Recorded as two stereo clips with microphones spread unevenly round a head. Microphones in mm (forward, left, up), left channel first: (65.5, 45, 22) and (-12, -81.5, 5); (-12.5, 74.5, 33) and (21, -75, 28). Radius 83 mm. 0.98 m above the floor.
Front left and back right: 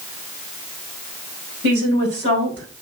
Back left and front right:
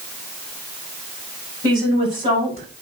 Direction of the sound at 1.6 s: 140° right.